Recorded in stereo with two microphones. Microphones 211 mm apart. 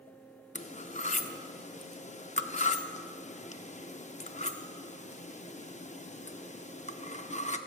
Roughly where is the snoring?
No snoring in this recording.